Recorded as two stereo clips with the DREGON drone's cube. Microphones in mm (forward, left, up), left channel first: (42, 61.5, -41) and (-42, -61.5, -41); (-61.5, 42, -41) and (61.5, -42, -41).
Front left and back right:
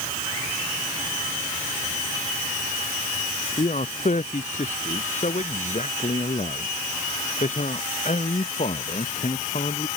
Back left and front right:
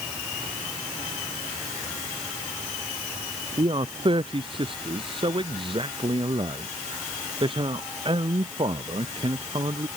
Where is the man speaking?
20° left.